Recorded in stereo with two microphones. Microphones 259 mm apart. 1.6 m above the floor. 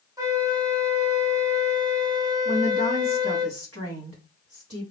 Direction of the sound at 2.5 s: 60° right (ahead or behind).